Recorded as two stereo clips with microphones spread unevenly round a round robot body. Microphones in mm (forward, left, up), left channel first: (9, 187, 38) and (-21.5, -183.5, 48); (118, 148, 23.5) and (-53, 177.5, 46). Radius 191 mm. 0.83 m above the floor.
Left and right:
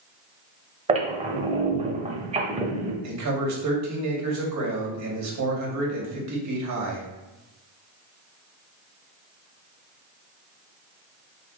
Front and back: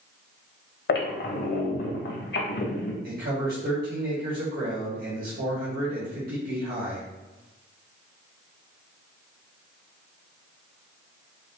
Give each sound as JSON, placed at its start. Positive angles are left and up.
{"t": 0.9, "sound": "a squeak", "azimuth_deg": -25, "distance_m": 0.8}
{"t": 3.0, "sound": "a man speaking", "azimuth_deg": -140, "distance_m": 2.0}